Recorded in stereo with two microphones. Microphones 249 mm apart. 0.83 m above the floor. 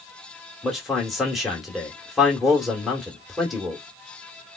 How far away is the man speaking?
About 1.7 m.